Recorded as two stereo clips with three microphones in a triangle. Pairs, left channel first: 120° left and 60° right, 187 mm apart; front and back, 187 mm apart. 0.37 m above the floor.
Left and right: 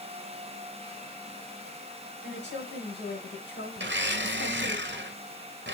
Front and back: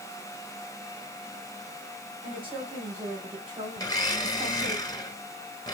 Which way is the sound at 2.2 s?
115° left.